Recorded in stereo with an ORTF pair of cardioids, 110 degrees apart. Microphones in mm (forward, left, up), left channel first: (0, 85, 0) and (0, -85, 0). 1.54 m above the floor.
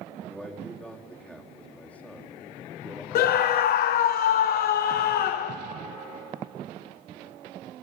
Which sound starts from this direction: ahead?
A man speaking, at 0.3 s.